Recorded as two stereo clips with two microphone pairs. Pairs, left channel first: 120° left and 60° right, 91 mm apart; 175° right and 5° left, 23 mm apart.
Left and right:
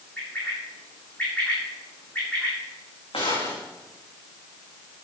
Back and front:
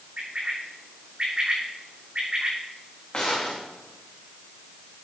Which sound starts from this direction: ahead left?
A bird, at 0.2 s.